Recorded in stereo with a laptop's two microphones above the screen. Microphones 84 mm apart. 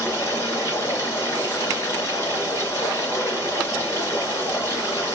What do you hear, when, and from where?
0.0 s running water: 30° left (ahead or behind), 3 m